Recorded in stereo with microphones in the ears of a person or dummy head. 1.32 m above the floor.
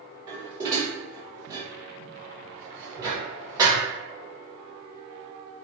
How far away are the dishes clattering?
About 0.9 m.